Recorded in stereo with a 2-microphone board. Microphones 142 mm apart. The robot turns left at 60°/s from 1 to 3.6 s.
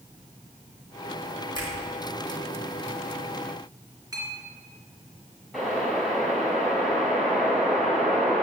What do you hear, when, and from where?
1.6 s a finger snap: 30° left (ahead or behind), 3 m; by 1.7 s 40° left (ahead or behind), 3 m
4.1 s a clink: 25° right (ahead or behind), 3 m
5.5 s a whoosh: centre (ahead or behind), 3.5 m